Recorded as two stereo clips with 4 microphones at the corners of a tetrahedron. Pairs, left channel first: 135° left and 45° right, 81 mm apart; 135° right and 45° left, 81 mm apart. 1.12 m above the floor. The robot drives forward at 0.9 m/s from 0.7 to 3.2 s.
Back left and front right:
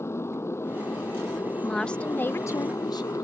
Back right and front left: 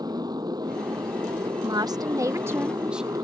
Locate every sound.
0.0 s a motorcycle: 75° left; by 3.2 s 85° left
1.6 s a woman speaking: 50° left; by 3.2 s 130° left